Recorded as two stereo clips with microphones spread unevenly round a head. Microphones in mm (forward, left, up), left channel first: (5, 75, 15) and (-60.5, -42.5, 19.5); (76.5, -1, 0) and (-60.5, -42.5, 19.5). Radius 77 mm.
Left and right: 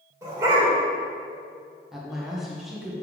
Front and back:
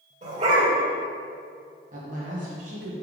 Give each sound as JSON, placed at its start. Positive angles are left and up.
{"t": 0.2, "sound": "a dog barking", "azimuth_deg": 180, "distance_m": 2.0}
{"t": 1.9, "sound": "a woman speaking", "azimuth_deg": 155, "distance_m": 1.6}